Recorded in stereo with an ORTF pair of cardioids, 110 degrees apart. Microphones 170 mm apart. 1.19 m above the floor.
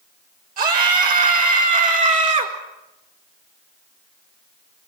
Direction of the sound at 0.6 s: 55° right.